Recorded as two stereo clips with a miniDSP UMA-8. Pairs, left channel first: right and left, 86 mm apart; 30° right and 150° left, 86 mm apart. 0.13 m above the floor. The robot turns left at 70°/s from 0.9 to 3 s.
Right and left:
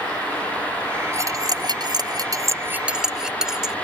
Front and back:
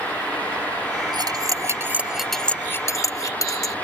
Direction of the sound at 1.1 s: 140° left.